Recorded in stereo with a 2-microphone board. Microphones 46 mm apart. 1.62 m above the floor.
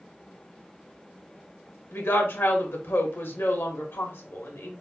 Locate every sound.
1.9 s a woman speaking: 60° left (ahead or behind), 1.1 m